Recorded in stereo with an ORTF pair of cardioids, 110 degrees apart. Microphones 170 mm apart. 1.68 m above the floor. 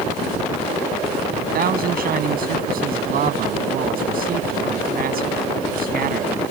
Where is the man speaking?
60° right.